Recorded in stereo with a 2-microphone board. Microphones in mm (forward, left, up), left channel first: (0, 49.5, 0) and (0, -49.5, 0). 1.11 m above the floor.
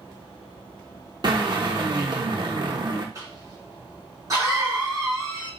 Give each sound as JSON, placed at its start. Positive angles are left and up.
{"t": 1.2, "sound": "a drill", "side_deg": -45, "distance_m": 0.9}
{"t": 3.1, "sound": "a cough", "side_deg": -30, "distance_m": 2.5}